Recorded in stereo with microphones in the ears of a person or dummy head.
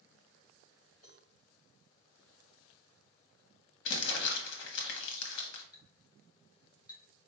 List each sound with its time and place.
1.0 s a cowbell: 45° left (ahead or behind), 2.5 m
3.9 s crumpling: 65° left (ahead or behind), 1.2 m
5.7 s a clink: 20° left (ahead or behind), 1.2 m